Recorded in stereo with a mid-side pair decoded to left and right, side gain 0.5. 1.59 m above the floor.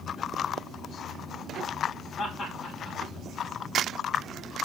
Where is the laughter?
50° left, 2.5 m.